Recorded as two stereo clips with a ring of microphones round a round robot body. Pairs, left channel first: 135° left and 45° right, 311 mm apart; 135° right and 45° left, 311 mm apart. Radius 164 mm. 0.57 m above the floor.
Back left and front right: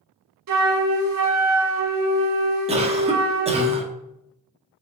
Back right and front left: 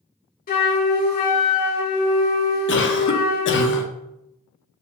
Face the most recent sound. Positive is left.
turn(degrees=-105)